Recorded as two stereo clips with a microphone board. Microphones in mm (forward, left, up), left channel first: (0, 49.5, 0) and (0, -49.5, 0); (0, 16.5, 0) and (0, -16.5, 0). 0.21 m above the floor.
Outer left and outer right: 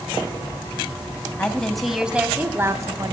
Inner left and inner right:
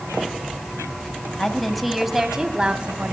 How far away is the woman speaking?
About 1.1 m.